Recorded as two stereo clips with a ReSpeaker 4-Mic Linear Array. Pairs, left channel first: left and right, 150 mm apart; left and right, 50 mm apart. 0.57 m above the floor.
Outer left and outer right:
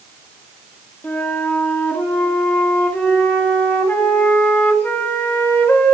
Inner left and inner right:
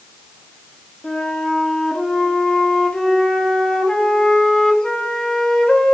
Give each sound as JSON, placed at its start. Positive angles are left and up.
{"t": 1.0, "sound": "a flute", "side_deg": 15, "distance_m": 1.4}